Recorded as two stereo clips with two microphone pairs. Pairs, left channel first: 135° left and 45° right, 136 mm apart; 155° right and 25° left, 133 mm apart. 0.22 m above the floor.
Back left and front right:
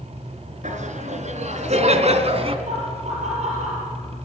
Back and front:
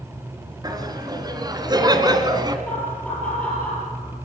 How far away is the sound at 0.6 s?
About 3.5 m.